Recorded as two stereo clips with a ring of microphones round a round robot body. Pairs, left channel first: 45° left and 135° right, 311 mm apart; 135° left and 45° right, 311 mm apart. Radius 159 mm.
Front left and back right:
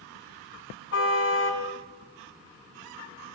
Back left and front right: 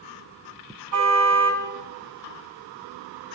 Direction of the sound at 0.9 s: 5° right.